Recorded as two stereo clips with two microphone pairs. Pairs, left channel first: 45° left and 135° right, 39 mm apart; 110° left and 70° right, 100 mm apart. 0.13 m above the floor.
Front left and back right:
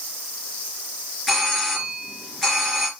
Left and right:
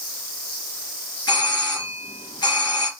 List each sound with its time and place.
1.3 s a doorbell: 130° left, 3 m